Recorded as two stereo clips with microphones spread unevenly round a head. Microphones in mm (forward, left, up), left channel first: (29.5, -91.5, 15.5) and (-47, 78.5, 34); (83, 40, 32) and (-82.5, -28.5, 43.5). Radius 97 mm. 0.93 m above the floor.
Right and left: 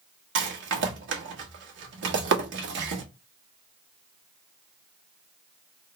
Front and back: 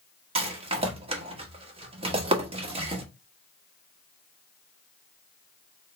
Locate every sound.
0.3 s a rattle: 140° left, 1.3 m